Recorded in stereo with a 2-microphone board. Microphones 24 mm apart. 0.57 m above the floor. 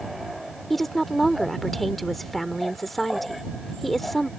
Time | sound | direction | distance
0.7 | a woman speaking | 5° left (ahead or behind) | ?